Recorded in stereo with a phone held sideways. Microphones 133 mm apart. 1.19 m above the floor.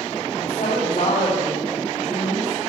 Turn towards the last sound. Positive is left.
turn(degrees=55)  # may be behind; listen again after turning